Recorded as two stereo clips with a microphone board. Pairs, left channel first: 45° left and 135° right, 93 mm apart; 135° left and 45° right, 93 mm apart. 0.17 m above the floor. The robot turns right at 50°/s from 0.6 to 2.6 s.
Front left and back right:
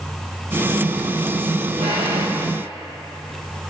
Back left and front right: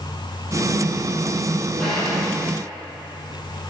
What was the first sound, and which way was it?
A drawer, 140° right.